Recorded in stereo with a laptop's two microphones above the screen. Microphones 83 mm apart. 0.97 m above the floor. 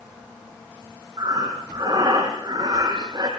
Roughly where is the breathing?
Right.